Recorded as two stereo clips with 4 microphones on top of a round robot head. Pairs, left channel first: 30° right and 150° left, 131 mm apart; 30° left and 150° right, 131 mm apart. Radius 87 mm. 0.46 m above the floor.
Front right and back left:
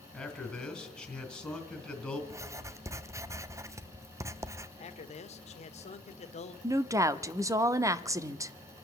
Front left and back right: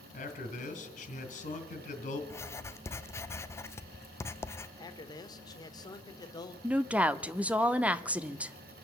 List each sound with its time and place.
0.1 s a man speaking: 55° left, 2.5 m
2.3 s writing: 95° left, 0.6 m
4.8 s a man speaking: 20° right, 1.3 m
6.6 s a woman speaking: 145° left, 0.7 m